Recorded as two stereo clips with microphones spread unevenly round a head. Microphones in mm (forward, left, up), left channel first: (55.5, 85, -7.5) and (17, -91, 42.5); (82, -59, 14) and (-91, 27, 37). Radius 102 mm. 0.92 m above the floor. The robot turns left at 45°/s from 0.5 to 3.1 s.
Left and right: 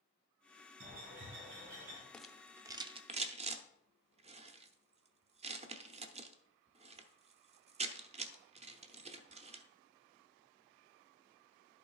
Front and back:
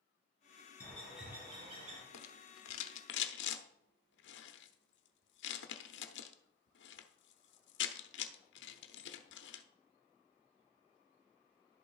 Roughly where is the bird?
Right.